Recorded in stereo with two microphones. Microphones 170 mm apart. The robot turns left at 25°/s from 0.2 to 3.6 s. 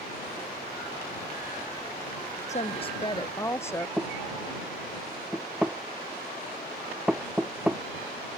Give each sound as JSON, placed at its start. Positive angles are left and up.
{"t": 2.5, "sound": "a woman speaking", "side_deg": 40}
{"t": 4.0, "sound": "knocking", "side_deg": -5}